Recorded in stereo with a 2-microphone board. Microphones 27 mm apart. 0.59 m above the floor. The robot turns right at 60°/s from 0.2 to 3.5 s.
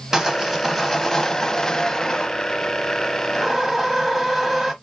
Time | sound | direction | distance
0.1 | sawing | 35° right | 1.1 m